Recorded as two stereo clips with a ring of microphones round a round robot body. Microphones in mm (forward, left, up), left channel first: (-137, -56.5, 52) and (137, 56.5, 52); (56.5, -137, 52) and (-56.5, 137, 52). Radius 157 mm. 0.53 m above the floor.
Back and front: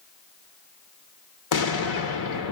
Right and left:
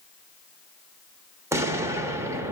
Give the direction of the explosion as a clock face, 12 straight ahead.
6 o'clock.